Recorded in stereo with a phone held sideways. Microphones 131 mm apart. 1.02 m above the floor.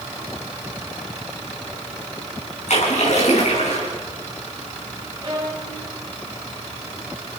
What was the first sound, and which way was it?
A splash, 65° left (ahead or behind).